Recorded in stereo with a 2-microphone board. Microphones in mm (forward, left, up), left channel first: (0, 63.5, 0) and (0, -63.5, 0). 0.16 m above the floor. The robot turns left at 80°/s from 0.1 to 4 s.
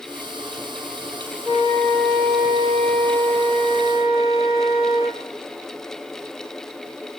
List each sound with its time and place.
1.4 s a flute: 15° right, 1.9 m; by 5.2 s 140° left, 1.9 m